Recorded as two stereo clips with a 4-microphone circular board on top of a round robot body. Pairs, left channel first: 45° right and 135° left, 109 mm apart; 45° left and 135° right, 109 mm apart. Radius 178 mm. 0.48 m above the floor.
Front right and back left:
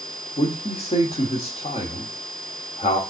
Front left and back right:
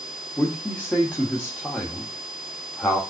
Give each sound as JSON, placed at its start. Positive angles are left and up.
{"t": 0.4, "sound": "a man speaking", "azimuth_deg": -35, "distance_m": 1.6}